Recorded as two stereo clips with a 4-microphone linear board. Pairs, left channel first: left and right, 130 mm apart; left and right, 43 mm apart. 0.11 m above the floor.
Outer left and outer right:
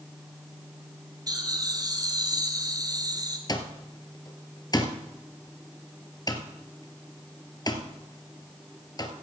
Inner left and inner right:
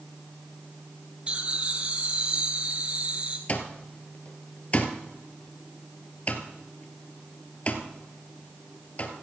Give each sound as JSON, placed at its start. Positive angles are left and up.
{"t": 1.3, "sound": "laughter", "side_deg": -30, "distance_m": 1.5}
{"t": 3.5, "sound": "an alarm clock", "side_deg": 30, "distance_m": 1.4}